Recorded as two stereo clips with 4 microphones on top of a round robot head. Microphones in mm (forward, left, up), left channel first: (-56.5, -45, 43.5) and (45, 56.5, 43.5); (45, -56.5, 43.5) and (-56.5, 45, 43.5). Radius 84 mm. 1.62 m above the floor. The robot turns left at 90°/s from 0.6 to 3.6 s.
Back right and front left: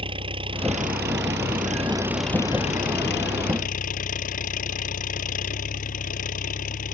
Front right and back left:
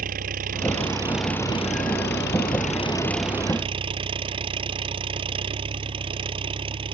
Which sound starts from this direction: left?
An engine running, at 0.0 s.